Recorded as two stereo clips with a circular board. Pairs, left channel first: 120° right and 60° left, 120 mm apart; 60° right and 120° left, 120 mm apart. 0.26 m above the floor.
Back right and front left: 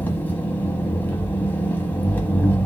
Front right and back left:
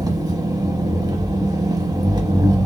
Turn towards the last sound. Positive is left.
turn(degrees=170)